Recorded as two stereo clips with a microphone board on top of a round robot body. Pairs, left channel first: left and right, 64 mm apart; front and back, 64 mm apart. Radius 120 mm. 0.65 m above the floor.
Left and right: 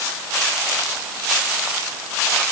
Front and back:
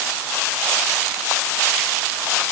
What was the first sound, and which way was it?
Only background noise.